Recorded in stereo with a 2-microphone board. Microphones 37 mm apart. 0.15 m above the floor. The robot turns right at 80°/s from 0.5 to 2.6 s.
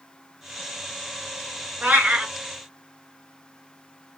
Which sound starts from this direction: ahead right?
A cat meowing, at 1.8 s.